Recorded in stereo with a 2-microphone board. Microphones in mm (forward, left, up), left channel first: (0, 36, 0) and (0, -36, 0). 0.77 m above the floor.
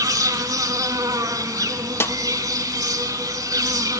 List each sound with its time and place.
0.0 s an insect: 60° right (ahead or behind), 1.0 m
2.0 s a snare drum: 35° left (ahead or behind), 0.6 m